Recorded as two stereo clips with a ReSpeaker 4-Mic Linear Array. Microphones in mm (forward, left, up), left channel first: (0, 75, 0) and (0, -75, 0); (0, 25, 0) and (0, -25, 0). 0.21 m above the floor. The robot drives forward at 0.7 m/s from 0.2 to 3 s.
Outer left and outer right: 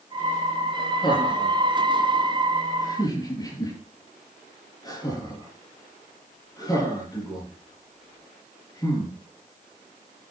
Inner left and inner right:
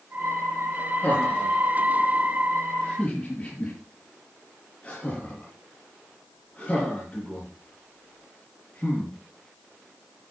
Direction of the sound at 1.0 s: 30° left (ahead or behind).